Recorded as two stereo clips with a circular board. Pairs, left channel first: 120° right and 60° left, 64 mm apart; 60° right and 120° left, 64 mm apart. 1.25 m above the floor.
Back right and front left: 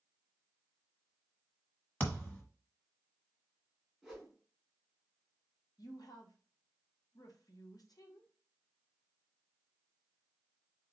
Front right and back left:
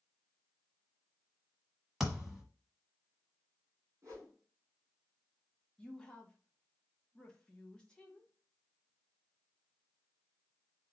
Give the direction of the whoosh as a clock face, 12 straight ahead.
7 o'clock.